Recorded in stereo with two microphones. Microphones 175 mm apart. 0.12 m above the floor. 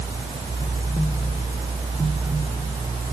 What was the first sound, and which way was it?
Only background noise.